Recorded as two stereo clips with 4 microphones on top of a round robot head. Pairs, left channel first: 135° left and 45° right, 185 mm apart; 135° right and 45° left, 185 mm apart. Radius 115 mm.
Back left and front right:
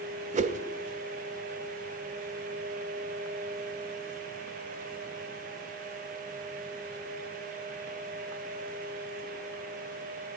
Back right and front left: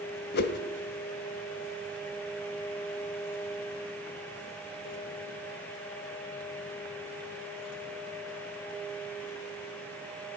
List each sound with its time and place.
0.3 s a whoosh: 95° right, 1.1 m